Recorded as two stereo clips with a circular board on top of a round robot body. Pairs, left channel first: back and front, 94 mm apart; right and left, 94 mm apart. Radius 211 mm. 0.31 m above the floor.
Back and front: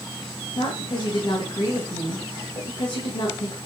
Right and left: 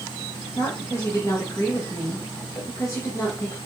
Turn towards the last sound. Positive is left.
turn(degrees=-145)